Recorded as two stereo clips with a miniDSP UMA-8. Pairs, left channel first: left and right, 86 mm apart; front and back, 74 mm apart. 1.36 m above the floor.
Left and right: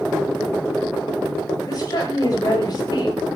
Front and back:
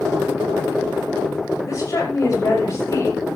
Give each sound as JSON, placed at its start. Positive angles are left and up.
{"t": 1.7, "sound": "a woman speaking", "azimuth_deg": 45, "distance_m": 7.0}